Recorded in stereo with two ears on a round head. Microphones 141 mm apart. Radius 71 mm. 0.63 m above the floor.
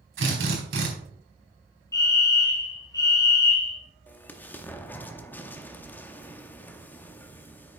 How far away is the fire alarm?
About 1.6 m.